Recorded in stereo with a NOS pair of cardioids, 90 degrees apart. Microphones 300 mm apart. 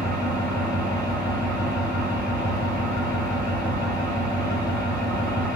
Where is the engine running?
30° right, 1.8 m.